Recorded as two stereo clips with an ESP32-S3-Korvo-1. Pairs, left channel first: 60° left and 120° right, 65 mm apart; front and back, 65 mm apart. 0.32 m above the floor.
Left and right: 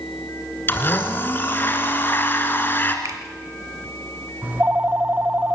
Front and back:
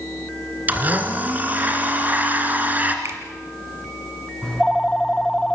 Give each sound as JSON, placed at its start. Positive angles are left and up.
{"t": 0.7, "sound": "a blender", "azimuth_deg": 115, "distance_m": 2.5}
{"t": 3.0, "sound": "a finger snap", "azimuth_deg": -135, "distance_m": 2.5}
{"t": 4.4, "sound": "a phone ringing", "azimuth_deg": -75, "distance_m": 0.6}